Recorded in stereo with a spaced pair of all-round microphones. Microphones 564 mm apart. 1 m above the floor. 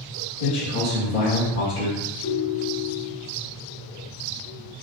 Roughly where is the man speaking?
Left.